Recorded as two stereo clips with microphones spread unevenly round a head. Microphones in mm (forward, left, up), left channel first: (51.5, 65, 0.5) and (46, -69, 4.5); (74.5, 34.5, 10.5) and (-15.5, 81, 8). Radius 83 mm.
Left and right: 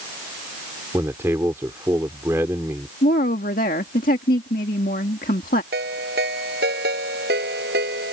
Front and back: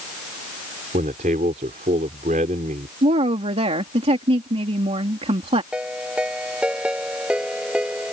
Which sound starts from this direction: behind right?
A ringtone, at 5.7 s.